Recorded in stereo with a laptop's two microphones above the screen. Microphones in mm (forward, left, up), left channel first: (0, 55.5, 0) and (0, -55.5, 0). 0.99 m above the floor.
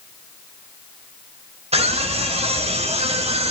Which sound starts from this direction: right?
A scream, at 1.7 s.